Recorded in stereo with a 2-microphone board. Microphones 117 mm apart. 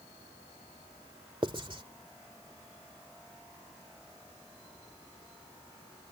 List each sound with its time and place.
1.4 s writing: 45° right (ahead or behind)